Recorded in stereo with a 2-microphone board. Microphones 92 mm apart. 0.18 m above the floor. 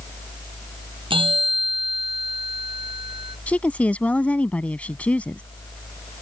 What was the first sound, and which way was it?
A bell, 70° right (ahead or behind).